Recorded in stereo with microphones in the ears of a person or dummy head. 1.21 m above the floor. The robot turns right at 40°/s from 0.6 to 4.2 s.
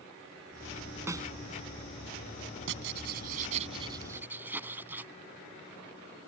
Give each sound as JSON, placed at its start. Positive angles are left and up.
{"t": 1.1, "sound": "a snare drum", "side_deg": -10}
{"t": 2.7, "sound": "writing", "azimuth_deg": -75}